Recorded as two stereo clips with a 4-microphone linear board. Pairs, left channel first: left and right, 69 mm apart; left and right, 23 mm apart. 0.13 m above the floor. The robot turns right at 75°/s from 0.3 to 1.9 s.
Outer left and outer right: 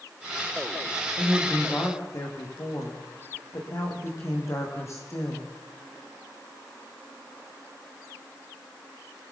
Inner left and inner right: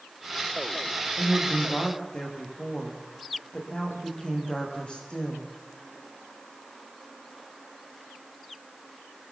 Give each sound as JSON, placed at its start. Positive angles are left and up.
{"t": 1.2, "sound": "a woman speaking", "azimuth_deg": -10, "distance_m": 7.5}